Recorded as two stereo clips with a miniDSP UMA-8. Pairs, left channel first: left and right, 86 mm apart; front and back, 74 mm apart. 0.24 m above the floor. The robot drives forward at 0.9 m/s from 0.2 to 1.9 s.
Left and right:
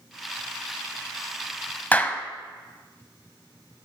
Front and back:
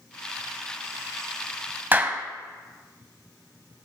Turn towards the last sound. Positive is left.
turn(degrees=145)